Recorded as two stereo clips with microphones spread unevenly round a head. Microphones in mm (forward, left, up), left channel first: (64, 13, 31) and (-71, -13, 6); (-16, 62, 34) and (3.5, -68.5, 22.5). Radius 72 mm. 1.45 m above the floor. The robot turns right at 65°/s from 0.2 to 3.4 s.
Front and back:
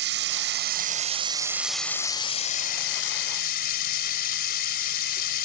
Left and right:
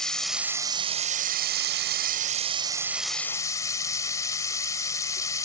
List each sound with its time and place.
0.0 s running water: 175° right; by 5.5 s 30° left